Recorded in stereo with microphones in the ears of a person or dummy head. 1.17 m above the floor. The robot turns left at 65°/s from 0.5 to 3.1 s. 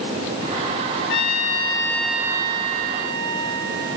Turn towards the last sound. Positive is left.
turn(degrees=-65)